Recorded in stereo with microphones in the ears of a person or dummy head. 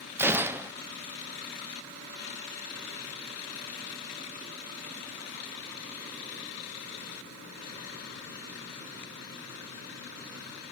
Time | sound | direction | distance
0.2 | a gunshot | 15° right (ahead or behind) | 1.1 m